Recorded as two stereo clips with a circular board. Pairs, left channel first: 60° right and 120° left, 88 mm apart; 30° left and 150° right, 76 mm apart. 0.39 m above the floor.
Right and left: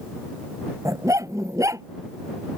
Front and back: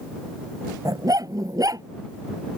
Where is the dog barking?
170° left.